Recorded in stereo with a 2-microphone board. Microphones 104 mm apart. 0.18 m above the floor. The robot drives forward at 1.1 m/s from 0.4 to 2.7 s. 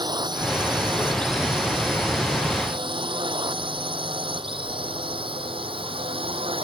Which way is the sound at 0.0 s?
50° right (ahead or behind).